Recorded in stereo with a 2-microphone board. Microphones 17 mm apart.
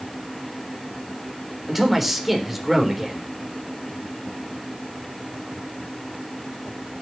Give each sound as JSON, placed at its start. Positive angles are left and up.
{"t": 1.7, "sound": "a man speaking", "side_deg": -15, "distance_m": 3.5}